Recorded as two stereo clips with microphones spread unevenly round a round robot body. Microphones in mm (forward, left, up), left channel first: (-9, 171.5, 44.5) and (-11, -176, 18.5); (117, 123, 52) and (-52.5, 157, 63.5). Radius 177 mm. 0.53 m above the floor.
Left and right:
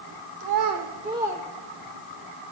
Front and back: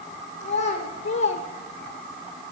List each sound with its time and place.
0.4 s a child speaking: 60° right, 0.9 m; by 2.2 s 25° left, 1.4 m